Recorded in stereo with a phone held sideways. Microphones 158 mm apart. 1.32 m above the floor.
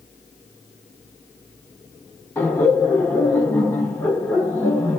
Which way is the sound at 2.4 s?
10° left (ahead or behind).